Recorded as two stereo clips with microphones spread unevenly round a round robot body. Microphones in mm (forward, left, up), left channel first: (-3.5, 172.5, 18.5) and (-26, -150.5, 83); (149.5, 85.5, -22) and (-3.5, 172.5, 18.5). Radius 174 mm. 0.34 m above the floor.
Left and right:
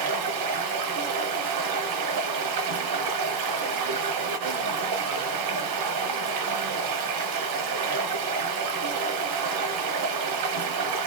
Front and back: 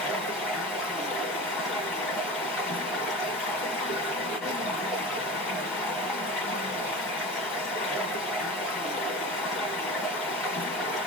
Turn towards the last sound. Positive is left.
turn(degrees=-115)